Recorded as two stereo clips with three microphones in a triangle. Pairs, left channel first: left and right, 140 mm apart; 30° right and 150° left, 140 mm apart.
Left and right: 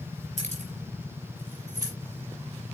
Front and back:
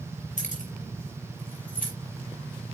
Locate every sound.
0.4 s keys jangling: 55° right, 3.5 m; by 1.9 s 25° right, 4.5 m